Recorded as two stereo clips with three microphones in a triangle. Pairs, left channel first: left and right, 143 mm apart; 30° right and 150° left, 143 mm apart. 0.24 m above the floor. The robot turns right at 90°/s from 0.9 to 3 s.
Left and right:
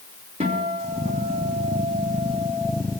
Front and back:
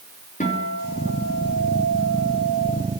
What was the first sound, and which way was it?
A guitar, 50° right.